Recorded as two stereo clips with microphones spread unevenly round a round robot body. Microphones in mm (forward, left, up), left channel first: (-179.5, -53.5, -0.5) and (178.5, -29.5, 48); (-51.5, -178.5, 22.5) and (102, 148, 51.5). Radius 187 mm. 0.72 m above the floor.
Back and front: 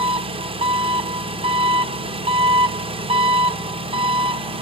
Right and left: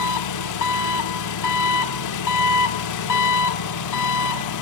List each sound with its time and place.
0.0 s an engine running: 75° right, 1.0 m